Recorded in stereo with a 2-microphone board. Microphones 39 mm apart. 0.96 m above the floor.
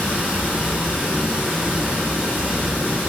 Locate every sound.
0.0 s running water: 45° right (ahead or behind), 1.5 m